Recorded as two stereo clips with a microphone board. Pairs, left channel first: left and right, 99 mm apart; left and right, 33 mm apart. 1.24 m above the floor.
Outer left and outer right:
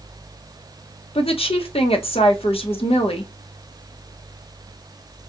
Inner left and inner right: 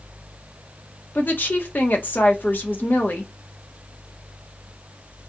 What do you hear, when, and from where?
1.1 s a woman speaking: 70° left (ahead or behind), 0.8 m